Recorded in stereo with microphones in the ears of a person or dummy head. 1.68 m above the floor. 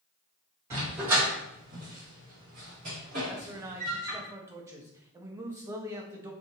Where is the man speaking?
20° right (ahead or behind), 0.6 m.